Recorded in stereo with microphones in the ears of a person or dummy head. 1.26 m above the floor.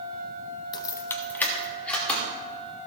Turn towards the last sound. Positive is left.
turn(degrees=5)  # may be behind; listen again after turning